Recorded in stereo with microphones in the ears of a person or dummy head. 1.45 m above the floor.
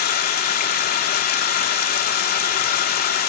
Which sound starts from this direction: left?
Running water, at 0.0 s.